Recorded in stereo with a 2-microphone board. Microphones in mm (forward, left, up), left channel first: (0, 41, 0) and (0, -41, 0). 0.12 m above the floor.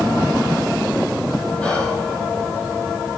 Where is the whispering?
15° left (ahead or behind), 3 m.